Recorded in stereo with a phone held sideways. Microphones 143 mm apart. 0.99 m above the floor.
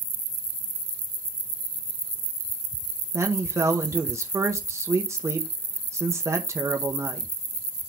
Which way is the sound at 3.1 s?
20° right (ahead or behind).